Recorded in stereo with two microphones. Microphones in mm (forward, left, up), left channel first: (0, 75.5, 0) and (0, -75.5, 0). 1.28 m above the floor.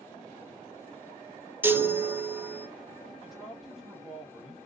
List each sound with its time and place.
1.6 s a chime: 15° right (ahead or behind), 0.5 m
3.2 s a man speaking: centre (ahead or behind), 1.8 m